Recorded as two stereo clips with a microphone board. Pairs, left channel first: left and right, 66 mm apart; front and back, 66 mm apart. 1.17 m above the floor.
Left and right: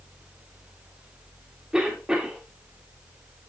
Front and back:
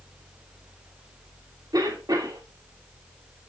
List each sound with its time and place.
1.7 s a cough: 170° right, 2.5 m